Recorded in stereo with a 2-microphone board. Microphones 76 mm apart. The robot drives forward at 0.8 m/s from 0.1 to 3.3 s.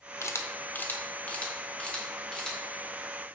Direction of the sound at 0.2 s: 40° left (ahead or behind).